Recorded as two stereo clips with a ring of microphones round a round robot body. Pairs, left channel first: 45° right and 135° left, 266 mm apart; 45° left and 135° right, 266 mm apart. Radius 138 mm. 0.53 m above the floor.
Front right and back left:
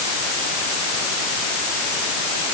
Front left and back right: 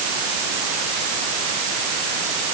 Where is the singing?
No singing in this recording.